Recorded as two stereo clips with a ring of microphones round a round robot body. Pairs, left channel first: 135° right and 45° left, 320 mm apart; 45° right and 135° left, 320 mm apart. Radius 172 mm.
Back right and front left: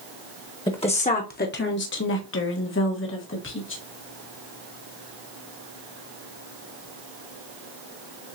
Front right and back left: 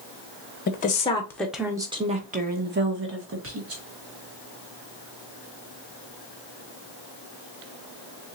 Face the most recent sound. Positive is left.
turn(degrees=175)